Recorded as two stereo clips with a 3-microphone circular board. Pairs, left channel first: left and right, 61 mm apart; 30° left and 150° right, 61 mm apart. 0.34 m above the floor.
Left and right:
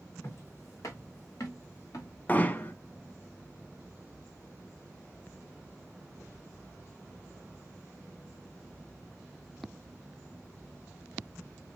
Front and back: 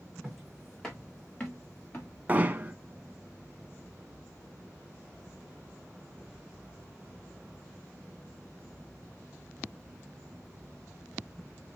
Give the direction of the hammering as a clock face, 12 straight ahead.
7 o'clock.